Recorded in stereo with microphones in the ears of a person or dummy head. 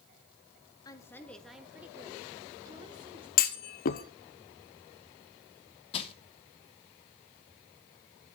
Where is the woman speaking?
20° left (ahead or behind), 1.3 m; by 3.3 s 30° right (ahead or behind), 2.5 m.